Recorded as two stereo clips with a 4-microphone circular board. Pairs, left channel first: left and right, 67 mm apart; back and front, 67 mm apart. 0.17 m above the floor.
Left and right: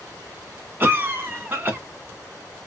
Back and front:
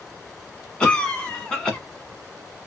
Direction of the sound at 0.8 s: 110° right.